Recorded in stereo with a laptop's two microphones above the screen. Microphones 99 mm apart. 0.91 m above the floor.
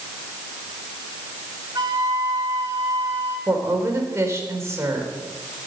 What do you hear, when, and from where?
1.8 s a flute: 40° right (ahead or behind), 3 m
3.5 s a woman speaking: 30° right (ahead or behind), 3.5 m